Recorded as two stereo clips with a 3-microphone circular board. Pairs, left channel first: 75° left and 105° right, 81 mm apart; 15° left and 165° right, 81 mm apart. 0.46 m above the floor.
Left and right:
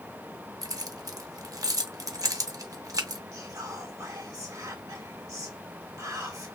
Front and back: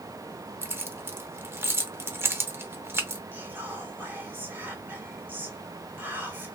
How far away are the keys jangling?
About 0.6 m.